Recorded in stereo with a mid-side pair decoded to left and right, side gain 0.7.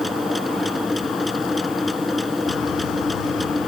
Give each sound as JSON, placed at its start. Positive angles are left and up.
{"t": 0.0, "sound": "a machine running", "azimuth_deg": 5}